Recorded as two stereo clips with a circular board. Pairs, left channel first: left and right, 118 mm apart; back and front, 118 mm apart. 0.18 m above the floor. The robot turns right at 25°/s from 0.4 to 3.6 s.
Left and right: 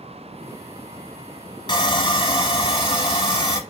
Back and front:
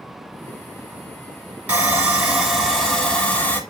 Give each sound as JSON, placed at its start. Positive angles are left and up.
{"t": 1.7, "sound": "sawing", "azimuth_deg": 70, "distance_m": 0.8}